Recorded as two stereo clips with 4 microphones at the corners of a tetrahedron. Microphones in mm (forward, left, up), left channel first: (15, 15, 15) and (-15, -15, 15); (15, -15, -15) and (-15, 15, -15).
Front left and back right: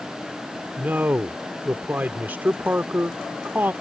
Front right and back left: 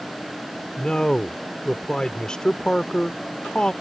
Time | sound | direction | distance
0.8 | a man speaking | 110° right | ?